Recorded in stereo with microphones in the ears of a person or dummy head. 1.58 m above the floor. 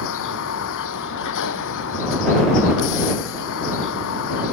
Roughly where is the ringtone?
I don't hear a ringtone.